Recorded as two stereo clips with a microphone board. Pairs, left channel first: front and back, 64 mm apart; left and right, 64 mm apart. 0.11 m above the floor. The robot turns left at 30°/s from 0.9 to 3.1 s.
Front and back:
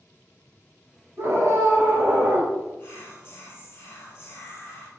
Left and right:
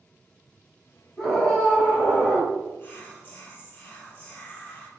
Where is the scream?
175° left, 1.7 m; by 2.5 s 135° left, 1.7 m.